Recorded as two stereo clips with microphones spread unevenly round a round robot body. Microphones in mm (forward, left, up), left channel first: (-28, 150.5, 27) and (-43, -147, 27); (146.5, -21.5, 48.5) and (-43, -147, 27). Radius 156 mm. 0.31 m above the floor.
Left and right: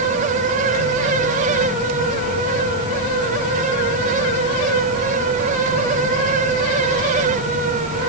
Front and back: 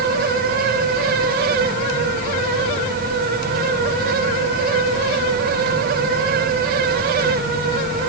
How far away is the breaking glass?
No breaking glass in this recording.